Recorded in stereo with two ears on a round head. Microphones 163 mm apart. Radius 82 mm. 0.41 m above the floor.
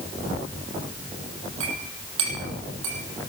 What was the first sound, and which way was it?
A clink, 85° right.